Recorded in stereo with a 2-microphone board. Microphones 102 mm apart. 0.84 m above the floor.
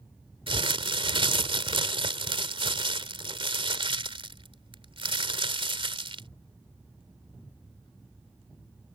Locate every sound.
0.5 s crumpling: 65° right (ahead or behind)